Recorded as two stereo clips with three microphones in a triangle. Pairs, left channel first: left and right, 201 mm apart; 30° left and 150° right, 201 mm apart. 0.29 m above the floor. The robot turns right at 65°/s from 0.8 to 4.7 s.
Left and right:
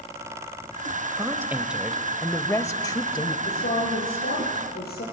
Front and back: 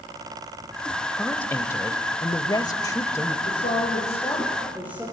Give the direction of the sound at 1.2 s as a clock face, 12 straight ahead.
2 o'clock.